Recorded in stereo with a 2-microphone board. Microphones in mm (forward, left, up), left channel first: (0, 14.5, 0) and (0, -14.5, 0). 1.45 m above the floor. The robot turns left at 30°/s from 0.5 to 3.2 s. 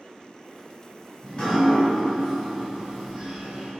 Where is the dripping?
40° left, 1.9 m; by 3.7 s 20° right, 1.9 m.